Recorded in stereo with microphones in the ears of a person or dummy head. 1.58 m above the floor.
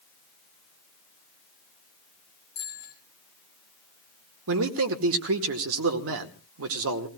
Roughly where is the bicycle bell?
Left.